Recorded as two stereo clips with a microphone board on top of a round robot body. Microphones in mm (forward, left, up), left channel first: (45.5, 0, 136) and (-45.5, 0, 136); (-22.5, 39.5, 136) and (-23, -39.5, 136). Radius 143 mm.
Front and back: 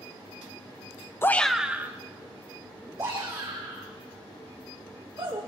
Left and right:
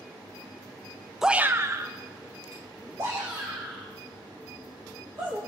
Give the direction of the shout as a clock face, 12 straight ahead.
12 o'clock.